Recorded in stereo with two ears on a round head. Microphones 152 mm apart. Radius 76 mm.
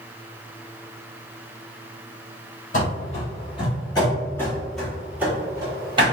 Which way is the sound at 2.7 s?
45° left (ahead or behind).